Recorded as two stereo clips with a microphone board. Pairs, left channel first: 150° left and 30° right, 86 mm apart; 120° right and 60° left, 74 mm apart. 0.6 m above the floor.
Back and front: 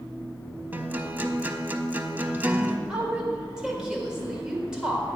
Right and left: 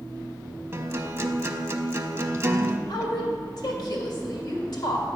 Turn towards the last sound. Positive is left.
turn(degrees=-110)